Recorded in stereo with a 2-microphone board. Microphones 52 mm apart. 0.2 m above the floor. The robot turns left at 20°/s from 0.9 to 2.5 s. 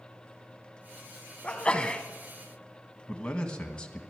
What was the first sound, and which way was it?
A sneeze, 25° left (ahead or behind).